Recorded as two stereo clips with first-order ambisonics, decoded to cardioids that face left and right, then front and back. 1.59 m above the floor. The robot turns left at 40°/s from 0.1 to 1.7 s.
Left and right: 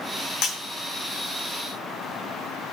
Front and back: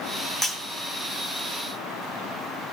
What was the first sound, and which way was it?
Breaking glass, 75° left.